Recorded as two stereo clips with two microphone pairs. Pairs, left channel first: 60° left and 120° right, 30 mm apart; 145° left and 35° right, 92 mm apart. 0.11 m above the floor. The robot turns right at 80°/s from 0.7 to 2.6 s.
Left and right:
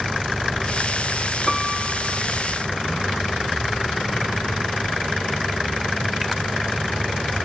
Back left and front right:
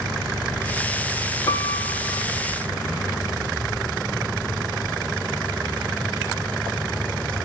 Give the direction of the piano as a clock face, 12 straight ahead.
7 o'clock.